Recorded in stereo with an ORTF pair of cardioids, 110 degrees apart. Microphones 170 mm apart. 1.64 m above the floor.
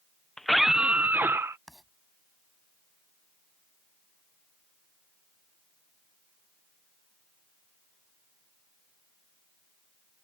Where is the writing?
Straight ahead.